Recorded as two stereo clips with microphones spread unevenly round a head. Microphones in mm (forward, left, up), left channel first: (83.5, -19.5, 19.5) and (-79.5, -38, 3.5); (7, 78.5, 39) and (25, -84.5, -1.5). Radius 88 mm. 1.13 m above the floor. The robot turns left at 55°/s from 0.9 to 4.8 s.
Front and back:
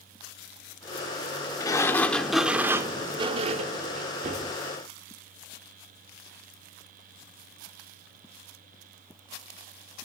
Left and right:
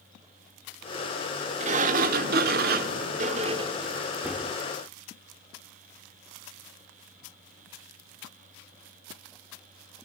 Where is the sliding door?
35° right, 0.8 m; by 4.5 s 160° left, 0.8 m.